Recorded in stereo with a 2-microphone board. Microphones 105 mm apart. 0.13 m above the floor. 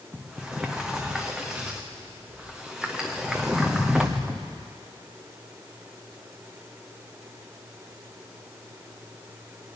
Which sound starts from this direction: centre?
A sliding door, at 0.1 s.